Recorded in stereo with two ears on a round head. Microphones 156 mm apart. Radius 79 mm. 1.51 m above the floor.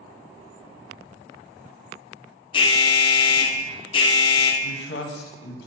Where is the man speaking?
70° left (ahead or behind), 1.0 m.